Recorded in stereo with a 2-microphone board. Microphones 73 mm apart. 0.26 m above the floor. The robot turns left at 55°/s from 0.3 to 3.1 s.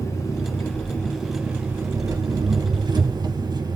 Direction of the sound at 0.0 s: 50° left.